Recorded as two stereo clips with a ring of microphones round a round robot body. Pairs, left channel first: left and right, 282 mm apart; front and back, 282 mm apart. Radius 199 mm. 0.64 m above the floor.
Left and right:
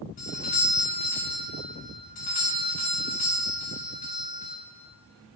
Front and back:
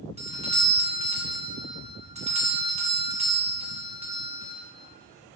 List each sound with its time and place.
0.2 s a doorbell: 130° left, 1.4 m